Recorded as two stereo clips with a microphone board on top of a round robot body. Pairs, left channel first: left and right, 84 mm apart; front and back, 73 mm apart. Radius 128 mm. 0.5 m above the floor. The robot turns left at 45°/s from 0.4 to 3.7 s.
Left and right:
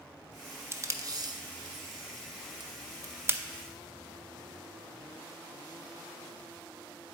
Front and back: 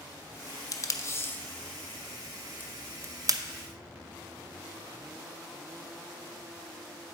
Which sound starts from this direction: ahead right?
Tape being pulled, at 0.7 s.